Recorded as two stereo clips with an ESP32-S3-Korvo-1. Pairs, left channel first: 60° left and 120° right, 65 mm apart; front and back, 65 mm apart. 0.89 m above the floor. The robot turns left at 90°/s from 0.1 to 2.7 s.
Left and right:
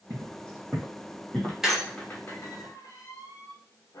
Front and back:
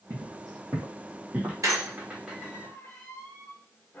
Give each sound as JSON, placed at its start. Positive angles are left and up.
{"t": 0.1, "sound": "footsteps", "azimuth_deg": -145, "distance_m": 1.7}
{"t": 1.6, "sound": "a squeak", "azimuth_deg": 160, "distance_m": 0.7}